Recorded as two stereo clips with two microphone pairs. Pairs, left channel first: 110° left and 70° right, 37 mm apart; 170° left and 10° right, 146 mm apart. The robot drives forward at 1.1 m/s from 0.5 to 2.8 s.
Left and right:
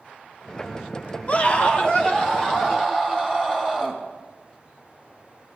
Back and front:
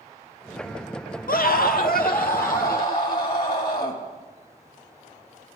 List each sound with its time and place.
1.3 s a scream: 160° left, 0.6 m; by 4.0 s 175° left, 2 m